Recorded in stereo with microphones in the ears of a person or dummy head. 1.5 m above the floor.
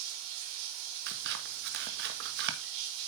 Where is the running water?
75° right (ahead or behind), 3.5 m.